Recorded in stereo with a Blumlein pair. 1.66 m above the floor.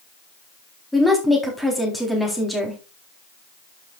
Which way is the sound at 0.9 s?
5° left.